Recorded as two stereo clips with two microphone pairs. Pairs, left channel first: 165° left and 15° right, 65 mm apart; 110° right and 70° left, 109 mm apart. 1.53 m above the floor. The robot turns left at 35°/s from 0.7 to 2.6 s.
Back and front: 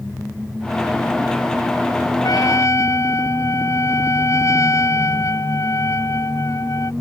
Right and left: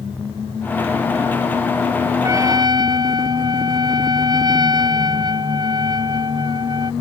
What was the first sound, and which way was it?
A trumpet, 135° left.